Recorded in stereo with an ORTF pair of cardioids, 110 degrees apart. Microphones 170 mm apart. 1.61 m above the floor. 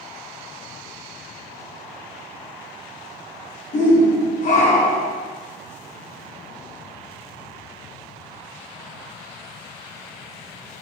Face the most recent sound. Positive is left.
turn(degrees=45)